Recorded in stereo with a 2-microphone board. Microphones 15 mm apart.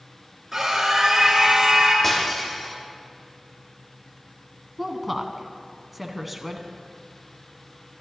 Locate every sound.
0.5 s a scream: 15° right (ahead or behind), 2.5 m
2.0 s breaking glass: 15° left (ahead or behind), 3.5 m
4.8 s a woman speaking: 5° right (ahead or behind), 1.0 m